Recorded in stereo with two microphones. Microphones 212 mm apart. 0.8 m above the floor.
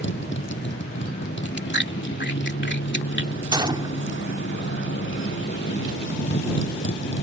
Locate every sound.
0.0 s a motorcycle: 65° left (ahead or behind)
1.4 s chewing: 60° left (ahead or behind)
3.5 s a gunshot: 20° right (ahead or behind)